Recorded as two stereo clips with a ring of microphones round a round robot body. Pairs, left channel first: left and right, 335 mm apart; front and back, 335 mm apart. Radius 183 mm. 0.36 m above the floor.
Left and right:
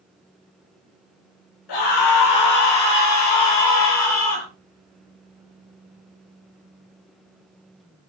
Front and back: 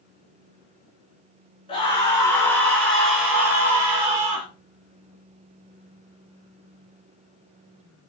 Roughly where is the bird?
I don't hear a bird.